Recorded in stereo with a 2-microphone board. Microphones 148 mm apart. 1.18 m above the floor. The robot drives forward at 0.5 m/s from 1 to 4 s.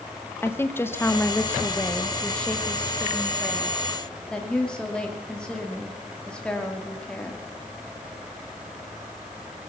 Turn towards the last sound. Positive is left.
turn(degrees=5)  # may be behind; listen again after turning